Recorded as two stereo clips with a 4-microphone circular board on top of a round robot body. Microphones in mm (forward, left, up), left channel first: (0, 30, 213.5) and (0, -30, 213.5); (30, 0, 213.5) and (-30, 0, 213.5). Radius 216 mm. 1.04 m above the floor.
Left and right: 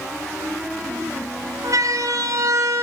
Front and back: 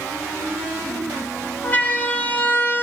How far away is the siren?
About 4.5 m.